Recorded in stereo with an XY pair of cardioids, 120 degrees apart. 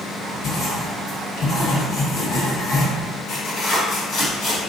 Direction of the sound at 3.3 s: 65° left.